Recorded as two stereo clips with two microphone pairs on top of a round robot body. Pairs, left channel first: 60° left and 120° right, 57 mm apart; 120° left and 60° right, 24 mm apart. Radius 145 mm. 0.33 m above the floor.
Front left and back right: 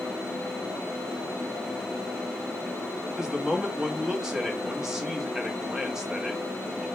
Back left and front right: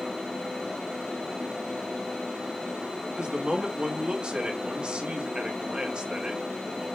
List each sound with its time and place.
3.2 s a man speaking: 65° right, 1.2 m